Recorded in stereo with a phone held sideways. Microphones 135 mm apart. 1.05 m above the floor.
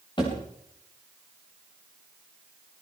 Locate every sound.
0.2 s a thud: 35° left (ahead or behind), 10 m